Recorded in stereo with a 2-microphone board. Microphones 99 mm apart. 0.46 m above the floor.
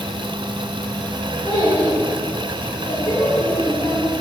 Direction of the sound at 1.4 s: 75° left (ahead or behind).